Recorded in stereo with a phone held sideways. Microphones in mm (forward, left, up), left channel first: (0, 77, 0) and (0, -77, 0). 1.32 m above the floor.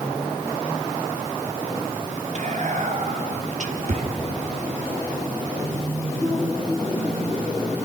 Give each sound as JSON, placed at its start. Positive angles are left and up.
{"t": 2.4, "sound": "whispering", "side_deg": -55, "distance_m": 3.0}